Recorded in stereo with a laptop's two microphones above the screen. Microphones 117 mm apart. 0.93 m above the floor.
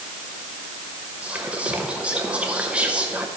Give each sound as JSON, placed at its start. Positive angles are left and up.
{"t": 1.2, "sound": "whispering", "side_deg": -10, "distance_m": 0.6}